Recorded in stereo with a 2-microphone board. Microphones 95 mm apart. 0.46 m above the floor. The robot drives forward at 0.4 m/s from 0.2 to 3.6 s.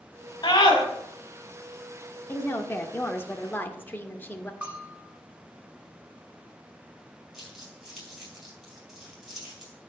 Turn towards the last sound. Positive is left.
turn(degrees=-5)  # may be behind; listen again after turning